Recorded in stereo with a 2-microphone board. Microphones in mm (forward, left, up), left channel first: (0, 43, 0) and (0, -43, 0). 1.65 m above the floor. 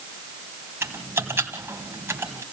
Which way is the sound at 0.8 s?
30° right (ahead or behind).